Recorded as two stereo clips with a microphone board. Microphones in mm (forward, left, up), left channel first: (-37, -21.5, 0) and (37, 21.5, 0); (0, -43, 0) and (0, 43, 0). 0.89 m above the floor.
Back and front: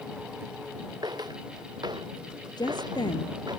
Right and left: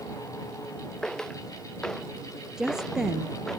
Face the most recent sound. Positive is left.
turn(degrees=175)